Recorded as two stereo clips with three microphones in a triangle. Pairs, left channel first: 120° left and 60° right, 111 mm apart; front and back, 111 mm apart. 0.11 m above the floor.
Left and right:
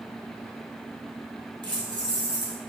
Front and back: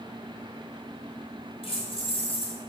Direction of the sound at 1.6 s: 20° right.